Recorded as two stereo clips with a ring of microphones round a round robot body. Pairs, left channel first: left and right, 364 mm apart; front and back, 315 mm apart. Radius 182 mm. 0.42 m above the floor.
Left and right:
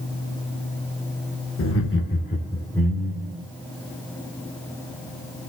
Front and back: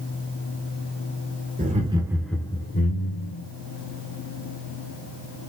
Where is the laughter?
125° left, 1.8 m; by 3.4 s 15° right, 1.9 m.